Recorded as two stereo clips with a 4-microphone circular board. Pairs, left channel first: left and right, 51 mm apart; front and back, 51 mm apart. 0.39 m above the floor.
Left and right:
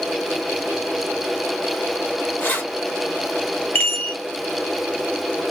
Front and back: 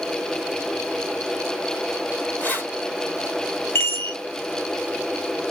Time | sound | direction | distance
2.4 | keys jangling | 50° left | 1.7 m
3.8 | a chime | 35° left | 1.4 m